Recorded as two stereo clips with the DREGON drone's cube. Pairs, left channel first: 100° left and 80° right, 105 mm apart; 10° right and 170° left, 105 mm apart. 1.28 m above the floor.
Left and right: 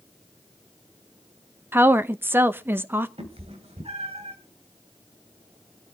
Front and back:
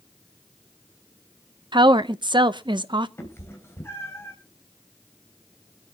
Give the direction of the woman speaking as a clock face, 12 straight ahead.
5 o'clock.